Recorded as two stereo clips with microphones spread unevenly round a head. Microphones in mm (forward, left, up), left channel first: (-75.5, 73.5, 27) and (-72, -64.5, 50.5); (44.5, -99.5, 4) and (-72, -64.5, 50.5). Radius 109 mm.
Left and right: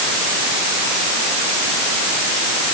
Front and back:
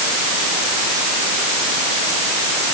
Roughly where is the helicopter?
I don't hear a helicopter.